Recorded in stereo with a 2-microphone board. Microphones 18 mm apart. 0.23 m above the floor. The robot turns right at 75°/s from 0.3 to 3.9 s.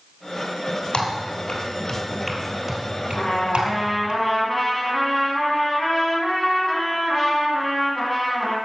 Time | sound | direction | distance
0.9 | typing on a keyboard | 65° left (ahead or behind) | 2.5 m
3.1 | a trumpet | 105° left | 2 m